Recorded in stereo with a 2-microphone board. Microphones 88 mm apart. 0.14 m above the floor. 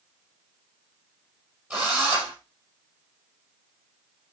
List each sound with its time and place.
1.7 s a drill: 15° right (ahead or behind), 6 m